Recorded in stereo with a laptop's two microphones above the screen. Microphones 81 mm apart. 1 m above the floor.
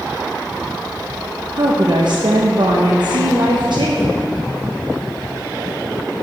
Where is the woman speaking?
65° right (ahead or behind), 0.6 m.